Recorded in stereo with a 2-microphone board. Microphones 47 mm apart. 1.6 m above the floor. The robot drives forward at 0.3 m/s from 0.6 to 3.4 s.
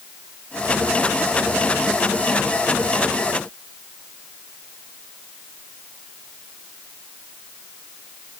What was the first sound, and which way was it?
Only background noise.